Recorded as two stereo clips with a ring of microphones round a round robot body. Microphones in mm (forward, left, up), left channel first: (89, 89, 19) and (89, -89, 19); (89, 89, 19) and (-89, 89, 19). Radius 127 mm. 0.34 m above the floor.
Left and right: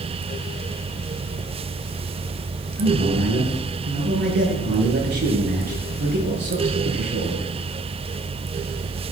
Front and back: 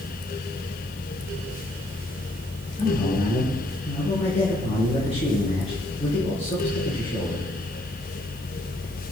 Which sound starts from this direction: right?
A man speaking, at 2.8 s.